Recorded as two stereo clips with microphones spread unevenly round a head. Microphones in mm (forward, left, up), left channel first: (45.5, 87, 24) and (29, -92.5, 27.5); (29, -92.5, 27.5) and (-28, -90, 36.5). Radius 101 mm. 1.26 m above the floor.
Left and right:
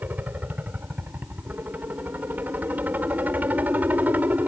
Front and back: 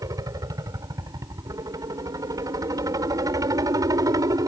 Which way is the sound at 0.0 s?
Straight behind.